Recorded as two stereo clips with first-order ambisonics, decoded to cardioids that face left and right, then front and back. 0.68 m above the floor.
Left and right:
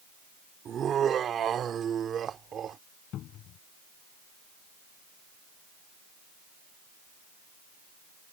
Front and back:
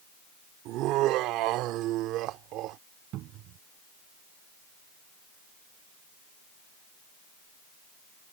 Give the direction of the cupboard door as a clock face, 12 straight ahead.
7 o'clock.